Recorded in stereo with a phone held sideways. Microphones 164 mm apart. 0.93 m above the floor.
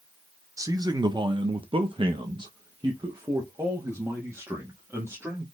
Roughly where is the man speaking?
Right.